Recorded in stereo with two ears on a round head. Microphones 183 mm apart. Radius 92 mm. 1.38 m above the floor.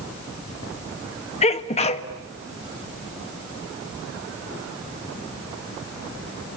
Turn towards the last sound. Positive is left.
turn(degrees=35)  # may be behind; listen again after turning